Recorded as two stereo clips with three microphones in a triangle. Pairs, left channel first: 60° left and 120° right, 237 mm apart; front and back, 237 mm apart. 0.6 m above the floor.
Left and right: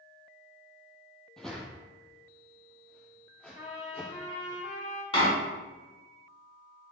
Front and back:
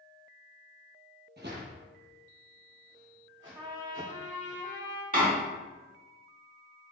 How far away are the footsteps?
About 0.9 m.